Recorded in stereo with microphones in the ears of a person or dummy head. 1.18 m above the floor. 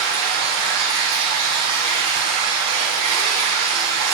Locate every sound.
0.0 s running water: 85° right, 3 m